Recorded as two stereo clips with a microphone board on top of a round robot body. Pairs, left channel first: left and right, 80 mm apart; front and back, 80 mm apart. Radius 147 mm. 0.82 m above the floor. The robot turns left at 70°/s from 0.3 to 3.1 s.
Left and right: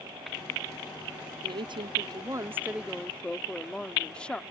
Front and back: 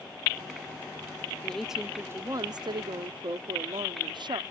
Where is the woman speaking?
75° right; by 4.4 s 165° left.